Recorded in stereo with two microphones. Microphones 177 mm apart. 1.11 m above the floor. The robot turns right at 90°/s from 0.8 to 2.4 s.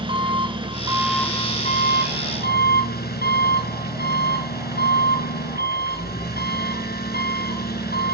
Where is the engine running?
30° right, 3.5 m; by 8.1 s 115° left, 3.5 m.